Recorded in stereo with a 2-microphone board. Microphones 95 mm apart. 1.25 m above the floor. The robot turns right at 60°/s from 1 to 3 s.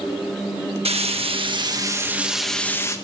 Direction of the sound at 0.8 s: 85° right.